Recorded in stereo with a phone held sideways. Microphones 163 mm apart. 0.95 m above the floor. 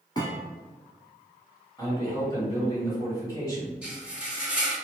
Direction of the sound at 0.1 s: 25° left (ahead or behind).